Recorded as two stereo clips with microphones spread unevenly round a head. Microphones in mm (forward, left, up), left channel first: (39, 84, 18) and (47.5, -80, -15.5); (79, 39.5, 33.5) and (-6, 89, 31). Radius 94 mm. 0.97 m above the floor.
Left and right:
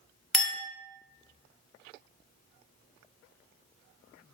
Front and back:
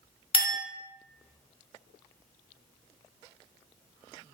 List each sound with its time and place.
0.3 s a clink: 5° left, 0.9 m